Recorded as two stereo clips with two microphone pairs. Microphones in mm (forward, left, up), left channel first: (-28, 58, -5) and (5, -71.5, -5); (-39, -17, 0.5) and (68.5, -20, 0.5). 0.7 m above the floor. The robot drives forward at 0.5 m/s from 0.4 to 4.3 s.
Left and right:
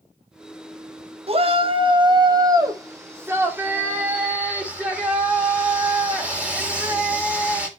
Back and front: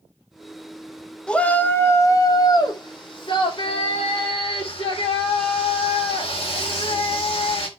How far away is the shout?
About 1.0 m.